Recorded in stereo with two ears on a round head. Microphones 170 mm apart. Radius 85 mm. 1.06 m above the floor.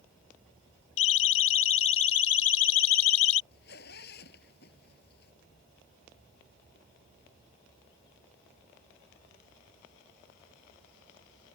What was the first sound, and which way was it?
A siren, 80° left.